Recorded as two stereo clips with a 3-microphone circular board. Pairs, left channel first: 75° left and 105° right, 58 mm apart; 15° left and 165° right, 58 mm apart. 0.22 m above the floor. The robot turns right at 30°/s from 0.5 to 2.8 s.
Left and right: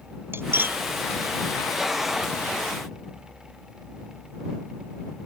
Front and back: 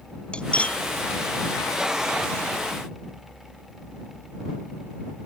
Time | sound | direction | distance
0.3 | cutlery clinking | 55° right | ?